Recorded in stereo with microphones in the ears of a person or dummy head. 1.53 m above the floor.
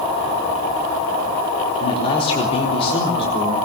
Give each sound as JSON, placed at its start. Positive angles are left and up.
{"t": 1.8, "sound": "a man speaking", "side_deg": 35, "distance_m": 3.5}